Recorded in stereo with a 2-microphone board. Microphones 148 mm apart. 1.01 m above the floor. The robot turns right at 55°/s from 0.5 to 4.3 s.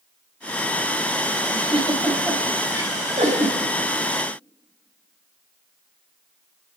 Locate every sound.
1.5 s a giggle: 45° left (ahead or behind), 5.5 m; by 3.6 s 70° right (ahead or behind), 5.5 m